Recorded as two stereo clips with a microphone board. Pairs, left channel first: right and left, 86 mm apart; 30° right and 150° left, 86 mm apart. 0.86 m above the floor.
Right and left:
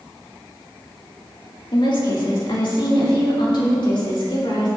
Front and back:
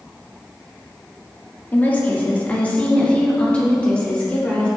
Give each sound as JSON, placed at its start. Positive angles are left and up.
{"t": 1.7, "sound": "a woman speaking", "azimuth_deg": -95, "distance_m": 1.9}